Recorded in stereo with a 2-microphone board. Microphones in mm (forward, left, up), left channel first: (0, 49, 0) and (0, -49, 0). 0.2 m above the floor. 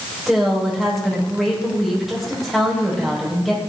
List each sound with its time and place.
0.3 s a woman speaking: 5° right (ahead or behind), 6.5 m